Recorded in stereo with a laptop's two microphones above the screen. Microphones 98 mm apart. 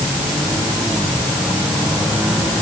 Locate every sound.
Only background noise.